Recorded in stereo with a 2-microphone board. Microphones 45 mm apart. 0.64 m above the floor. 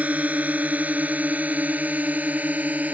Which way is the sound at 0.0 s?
35° right (ahead or behind).